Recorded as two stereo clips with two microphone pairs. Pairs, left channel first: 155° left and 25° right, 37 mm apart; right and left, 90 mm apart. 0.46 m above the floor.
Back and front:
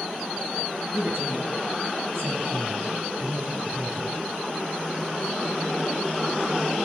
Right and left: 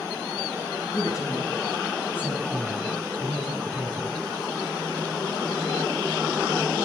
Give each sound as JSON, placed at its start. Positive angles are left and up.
{"t": 0.9, "sound": "a woman speaking", "azimuth_deg": -40, "distance_m": 3.5}